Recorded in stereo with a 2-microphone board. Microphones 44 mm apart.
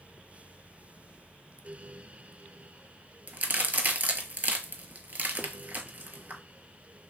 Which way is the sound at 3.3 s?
45° right (ahead or behind).